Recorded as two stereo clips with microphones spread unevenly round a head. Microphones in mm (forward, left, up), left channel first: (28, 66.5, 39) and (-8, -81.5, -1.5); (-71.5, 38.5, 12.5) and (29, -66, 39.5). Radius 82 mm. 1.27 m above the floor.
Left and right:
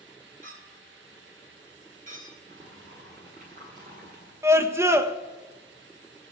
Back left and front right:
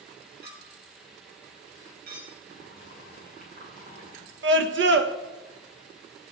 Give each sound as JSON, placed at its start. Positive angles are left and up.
{"t": 0.4, "sound": "a clink", "azimuth_deg": -60, "distance_m": 5.5}
{"t": 2.5, "sound": "boiling", "azimuth_deg": -65, "distance_m": 8.0}
{"t": 4.4, "sound": "a scream", "azimuth_deg": -30, "distance_m": 1.3}